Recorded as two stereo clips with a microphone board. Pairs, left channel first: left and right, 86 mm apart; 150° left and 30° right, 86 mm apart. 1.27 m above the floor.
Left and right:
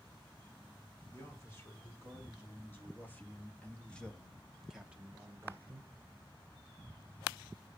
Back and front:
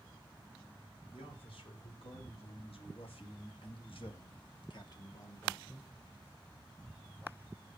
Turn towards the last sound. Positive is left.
turn(degrees=-125)